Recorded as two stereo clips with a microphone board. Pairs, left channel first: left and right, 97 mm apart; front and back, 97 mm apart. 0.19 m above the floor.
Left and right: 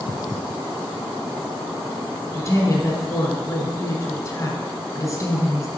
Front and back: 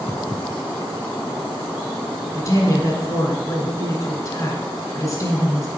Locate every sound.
2.3 s a woman speaking: 45° left, 2.0 m